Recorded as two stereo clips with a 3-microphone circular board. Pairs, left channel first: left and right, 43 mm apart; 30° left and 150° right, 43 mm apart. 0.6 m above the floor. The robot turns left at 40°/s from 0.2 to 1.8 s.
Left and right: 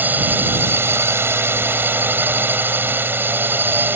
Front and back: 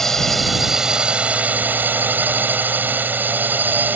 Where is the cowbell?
No cowbell in this recording.